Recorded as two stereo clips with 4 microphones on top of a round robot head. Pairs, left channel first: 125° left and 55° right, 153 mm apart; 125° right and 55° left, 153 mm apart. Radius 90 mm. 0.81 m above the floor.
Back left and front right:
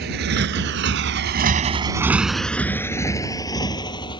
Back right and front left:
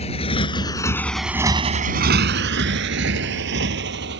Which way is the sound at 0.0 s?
75° right.